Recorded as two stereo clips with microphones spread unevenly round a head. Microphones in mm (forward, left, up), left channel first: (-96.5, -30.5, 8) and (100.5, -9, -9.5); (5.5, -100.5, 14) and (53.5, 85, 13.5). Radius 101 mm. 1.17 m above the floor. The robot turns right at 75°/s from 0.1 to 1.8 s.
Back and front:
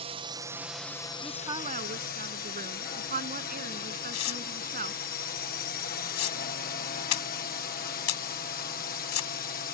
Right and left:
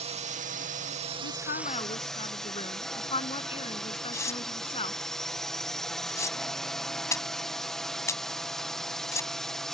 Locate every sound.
0.0 s a drone: 40° left; by 9.7 s 170° left
1.2 s a woman speaking: 85° right; by 5.0 s 45° right
4.1 s tearing paper: straight behind